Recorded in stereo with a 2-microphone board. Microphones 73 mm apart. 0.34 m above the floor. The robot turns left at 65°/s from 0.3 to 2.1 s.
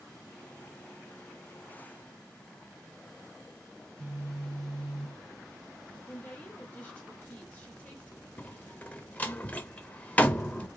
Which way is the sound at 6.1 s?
20° left (ahead or behind).